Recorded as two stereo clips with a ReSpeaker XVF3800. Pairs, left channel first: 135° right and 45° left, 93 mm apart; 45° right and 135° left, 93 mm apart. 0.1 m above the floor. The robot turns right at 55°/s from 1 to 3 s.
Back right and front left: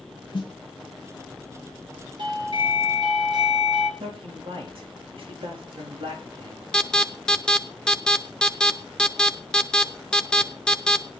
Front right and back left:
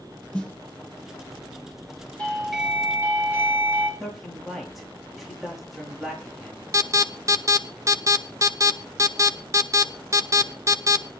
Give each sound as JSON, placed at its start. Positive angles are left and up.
{"t": 0.3, "sound": "a snare drum", "azimuth_deg": -120, "distance_m": 2.5}
{"t": 2.2, "sound": "a doorbell", "azimuth_deg": 30, "distance_m": 4.0}
{"t": 4.0, "sound": "a man speaking", "azimuth_deg": 45, "distance_m": 5.5}
{"t": 6.7, "sound": "an alarm", "azimuth_deg": 150, "distance_m": 0.9}